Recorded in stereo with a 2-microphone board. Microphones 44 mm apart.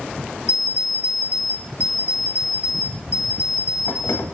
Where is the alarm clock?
75° left (ahead or behind), 0.8 m.